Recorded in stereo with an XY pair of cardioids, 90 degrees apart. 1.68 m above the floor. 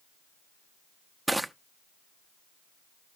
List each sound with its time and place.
1.3 s crushing: 5° right, 0.6 m